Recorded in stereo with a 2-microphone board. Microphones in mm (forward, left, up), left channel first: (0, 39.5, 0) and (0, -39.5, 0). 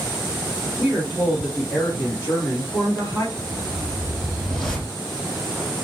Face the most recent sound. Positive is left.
turn(degrees=5)  # may be behind; listen again after turning